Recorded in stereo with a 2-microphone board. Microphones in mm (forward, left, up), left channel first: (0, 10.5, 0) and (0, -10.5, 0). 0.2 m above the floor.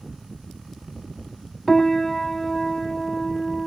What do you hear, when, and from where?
1.7 s a piano: 15° left (ahead or behind)